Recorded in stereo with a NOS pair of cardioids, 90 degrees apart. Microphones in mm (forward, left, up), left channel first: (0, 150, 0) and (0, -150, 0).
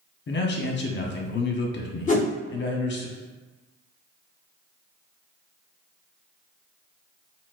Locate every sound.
0.3 s a man speaking: 40° left, 0.8 m
2.1 s a whoosh: 25° left, 1.1 m